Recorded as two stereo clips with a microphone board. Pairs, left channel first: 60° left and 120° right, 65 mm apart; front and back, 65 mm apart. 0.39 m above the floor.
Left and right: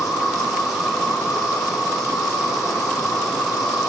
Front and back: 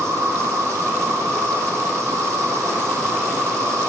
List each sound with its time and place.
0.0 s an insect: 150° left, 2.5 m